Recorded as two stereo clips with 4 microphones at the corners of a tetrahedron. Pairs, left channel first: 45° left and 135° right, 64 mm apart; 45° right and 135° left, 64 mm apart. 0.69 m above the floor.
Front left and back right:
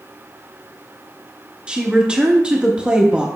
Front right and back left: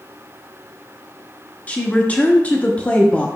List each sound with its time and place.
1.7 s a woman speaking: 80° right, 1.0 m